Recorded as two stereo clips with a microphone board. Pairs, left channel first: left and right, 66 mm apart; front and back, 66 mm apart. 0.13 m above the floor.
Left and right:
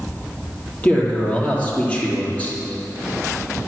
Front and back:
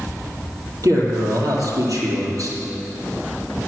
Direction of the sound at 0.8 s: 155° left.